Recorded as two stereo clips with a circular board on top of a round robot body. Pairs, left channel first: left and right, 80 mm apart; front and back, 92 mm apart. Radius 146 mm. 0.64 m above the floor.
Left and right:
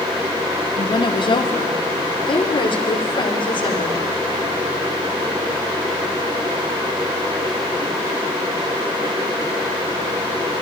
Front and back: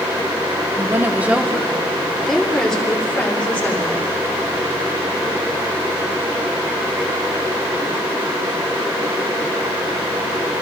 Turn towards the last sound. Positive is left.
turn(degrees=75)